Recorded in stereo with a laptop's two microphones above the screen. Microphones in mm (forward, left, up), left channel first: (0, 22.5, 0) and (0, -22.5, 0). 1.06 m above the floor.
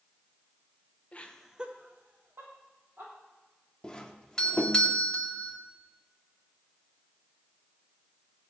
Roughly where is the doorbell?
Centre.